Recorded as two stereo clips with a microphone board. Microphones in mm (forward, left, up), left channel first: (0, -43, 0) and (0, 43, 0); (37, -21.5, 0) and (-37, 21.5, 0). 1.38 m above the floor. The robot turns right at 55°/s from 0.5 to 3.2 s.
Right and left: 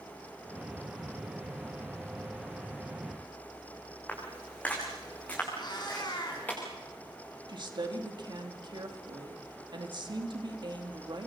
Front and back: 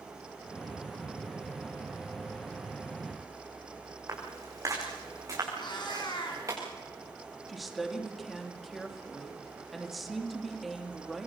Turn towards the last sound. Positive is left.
turn(degrees=60)